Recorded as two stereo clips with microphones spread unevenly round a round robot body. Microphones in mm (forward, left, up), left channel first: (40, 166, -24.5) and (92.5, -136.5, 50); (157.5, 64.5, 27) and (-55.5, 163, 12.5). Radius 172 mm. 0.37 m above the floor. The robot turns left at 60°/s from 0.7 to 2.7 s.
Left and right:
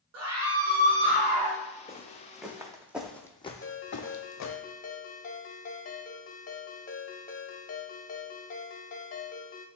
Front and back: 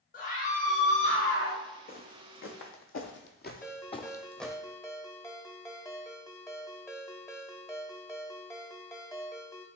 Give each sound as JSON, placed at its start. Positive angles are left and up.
{"t": 0.1, "sound": "a scream", "azimuth_deg": -55, "distance_m": 1.6}
{"t": 1.9, "sound": "footsteps", "azimuth_deg": 25, "distance_m": 1.2}
{"t": 3.6, "sound": "a ringtone", "azimuth_deg": 55, "distance_m": 0.9}